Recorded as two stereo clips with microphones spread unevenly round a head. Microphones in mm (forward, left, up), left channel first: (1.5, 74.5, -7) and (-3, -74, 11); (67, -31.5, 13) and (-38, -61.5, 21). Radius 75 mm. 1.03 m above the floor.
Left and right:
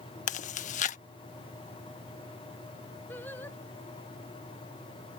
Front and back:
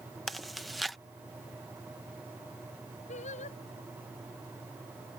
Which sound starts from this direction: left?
Chewing, at 0.3 s.